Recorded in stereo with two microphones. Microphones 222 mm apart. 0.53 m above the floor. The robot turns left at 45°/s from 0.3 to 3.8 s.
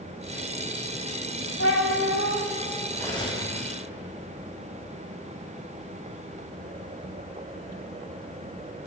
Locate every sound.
1.6 s a cat meowing: 105° left, 1.9 m; by 2.4 s 70° left, 1.9 m
2.9 s cutlery clinking: 10° left (ahead or behind), 2.5 m; by 3.5 s 30° left (ahead or behind), 2.5 m